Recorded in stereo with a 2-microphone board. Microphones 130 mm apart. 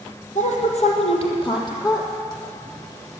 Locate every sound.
0.3 s a woman speaking: 65° left (ahead or behind), 3 m; by 2.1 s 25° left (ahead or behind), 3.5 m